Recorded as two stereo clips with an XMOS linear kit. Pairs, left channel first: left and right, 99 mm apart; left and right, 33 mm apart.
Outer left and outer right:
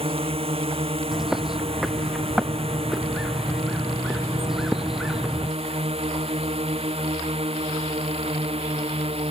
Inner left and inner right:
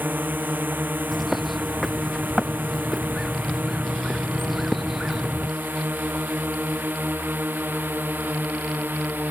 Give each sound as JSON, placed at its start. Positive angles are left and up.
{"t": 0.0, "sound": "a drone", "side_deg": -75}
{"t": 1.1, "sound": "a bird", "side_deg": -5}